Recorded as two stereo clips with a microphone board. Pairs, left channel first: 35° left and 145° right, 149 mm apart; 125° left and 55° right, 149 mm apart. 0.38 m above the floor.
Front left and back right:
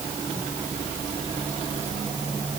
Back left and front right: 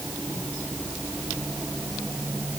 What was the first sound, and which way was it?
Only background noise.